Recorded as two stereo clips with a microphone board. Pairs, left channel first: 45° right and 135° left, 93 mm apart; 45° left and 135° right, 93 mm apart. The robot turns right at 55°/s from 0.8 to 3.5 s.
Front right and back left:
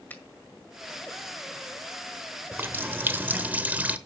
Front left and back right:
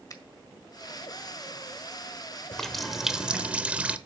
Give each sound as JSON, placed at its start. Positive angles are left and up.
{"t": 0.1, "sound": "a finger snap", "azimuth_deg": 15, "distance_m": 1.6}
{"t": 2.5, "sound": "a running tap", "azimuth_deg": 120, "distance_m": 0.8}